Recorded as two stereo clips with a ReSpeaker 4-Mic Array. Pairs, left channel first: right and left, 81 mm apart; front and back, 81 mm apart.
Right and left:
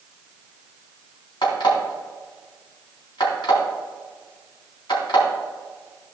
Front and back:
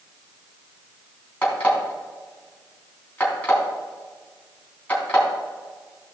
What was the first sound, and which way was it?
An alarm clock, 70° right.